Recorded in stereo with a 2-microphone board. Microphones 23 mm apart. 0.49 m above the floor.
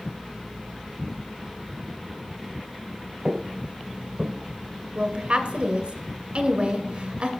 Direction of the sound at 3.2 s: 45° right (ahead or behind).